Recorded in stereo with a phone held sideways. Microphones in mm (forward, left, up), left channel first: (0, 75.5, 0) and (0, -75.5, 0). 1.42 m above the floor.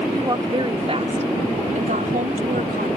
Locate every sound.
0.1 s a woman speaking: 25° right (ahead or behind); by 2.9 s 80° right